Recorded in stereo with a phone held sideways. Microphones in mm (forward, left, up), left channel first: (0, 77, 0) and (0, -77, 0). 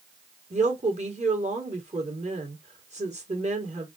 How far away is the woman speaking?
About 1.9 m.